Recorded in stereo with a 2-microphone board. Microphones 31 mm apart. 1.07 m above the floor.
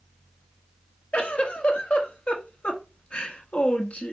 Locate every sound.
1.1 s a giggle: 45° left (ahead or behind), 1.3 m